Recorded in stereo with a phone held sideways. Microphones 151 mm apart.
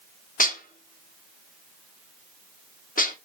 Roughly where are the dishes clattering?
Left.